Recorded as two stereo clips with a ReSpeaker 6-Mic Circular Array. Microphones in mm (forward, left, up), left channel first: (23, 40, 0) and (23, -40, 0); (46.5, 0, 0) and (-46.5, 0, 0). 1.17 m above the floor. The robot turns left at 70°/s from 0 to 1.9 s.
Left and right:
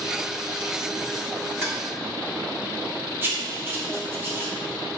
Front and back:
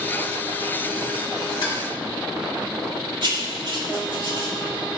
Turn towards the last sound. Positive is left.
turn(degrees=-150)